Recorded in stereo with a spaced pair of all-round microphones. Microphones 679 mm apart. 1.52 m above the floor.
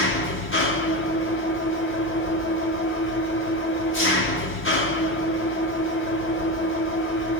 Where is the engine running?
15° left (ahead or behind), 1.2 m.